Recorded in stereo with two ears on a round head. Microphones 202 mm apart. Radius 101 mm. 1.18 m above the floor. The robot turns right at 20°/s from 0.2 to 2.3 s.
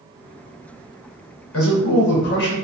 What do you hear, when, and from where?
1.5 s a man speaking: 70° left (ahead or behind), 1.0 m; by 2.5 s 55° left (ahead or behind), 1.0 m